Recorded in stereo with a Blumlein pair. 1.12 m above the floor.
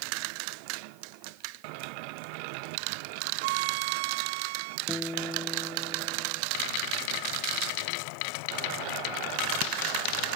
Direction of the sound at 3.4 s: 50° right.